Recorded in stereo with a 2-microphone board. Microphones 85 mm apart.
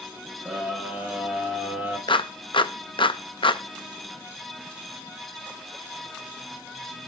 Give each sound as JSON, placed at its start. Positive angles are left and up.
{"t": 0.5, "sound": "a scream", "side_deg": -10, "distance_m": 9.0}
{"t": 2.1, "sound": "a clap", "side_deg": 70, "distance_m": 0.6}